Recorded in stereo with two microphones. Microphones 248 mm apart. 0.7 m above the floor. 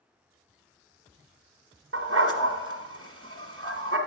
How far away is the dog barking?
About 1.5 m.